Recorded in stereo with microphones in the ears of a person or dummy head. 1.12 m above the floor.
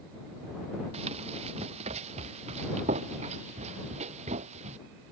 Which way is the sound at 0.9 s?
35° right (ahead or behind).